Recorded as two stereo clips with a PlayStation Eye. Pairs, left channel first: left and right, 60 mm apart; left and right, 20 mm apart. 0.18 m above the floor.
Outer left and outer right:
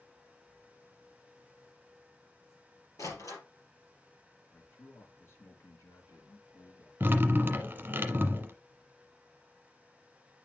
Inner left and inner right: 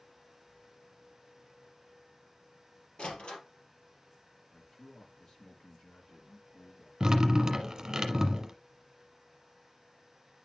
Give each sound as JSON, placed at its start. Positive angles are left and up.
{"t": 3.0, "sound": "a door slam", "side_deg": 65, "distance_m": 3.5}
{"t": 4.5, "sound": "a man speaking", "side_deg": 50, "distance_m": 2.5}
{"t": 7.0, "sound": "dripping", "side_deg": -30, "distance_m": 1.1}